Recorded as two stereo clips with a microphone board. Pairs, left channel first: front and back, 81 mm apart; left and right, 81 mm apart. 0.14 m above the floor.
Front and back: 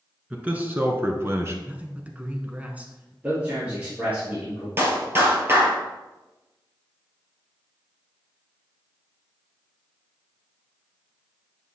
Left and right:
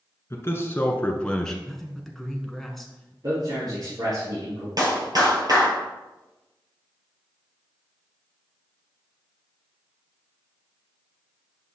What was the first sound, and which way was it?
A man speaking, 115° left.